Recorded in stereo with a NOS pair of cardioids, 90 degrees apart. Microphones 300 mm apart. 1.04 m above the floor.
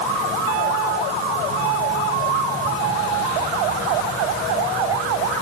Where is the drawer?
No drawer in this recording.